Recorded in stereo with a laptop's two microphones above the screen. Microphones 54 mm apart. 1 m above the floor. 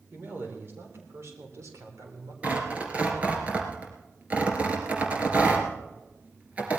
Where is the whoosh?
No whoosh in this recording.